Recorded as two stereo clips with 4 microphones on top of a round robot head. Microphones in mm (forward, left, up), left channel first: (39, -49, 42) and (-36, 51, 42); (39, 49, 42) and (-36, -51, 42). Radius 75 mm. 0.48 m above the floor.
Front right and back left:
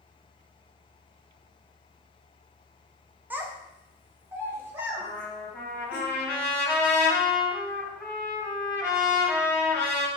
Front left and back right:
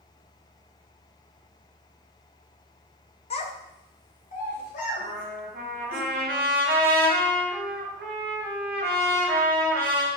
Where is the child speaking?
55° left, 0.5 m.